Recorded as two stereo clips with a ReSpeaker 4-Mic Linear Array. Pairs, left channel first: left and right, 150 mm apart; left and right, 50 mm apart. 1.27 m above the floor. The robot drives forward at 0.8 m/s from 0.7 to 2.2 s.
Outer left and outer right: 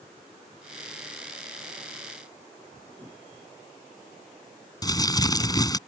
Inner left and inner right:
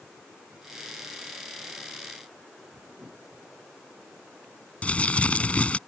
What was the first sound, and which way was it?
A whoosh, 25° right (ahead or behind).